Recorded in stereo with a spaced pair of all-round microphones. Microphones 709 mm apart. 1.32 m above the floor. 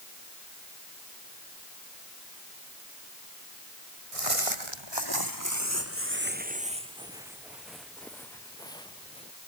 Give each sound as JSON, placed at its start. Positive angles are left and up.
{"t": 4.1, "sound": "footsteps", "side_deg": -50}